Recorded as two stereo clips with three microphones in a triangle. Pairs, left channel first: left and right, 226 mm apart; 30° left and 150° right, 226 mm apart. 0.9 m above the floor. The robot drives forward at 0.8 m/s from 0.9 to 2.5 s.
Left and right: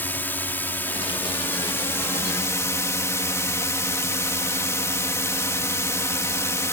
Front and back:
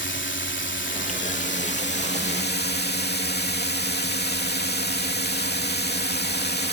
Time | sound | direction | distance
0.0 | a drone | 10° left | ?